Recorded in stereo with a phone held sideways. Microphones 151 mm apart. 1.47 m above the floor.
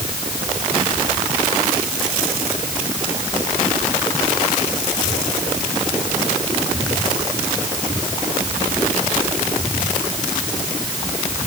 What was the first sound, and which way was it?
Only background noise.